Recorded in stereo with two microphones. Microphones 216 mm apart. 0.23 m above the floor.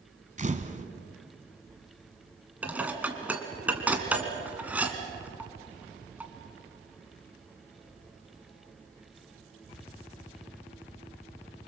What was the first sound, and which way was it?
A camera shutter, 35° right (ahead or behind).